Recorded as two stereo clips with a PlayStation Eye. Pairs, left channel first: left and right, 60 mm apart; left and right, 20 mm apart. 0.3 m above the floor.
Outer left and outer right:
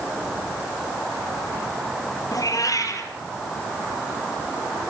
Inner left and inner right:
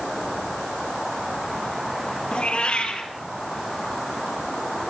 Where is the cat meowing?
70° left (ahead or behind), 3 m.